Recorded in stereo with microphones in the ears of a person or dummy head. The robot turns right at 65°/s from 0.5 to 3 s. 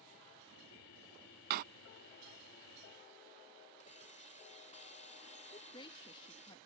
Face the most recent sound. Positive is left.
turn(degrees=25)  # may be behind; listen again after turning